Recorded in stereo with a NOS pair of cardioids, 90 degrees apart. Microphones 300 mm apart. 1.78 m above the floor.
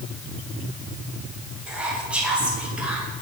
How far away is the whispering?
About 2 m.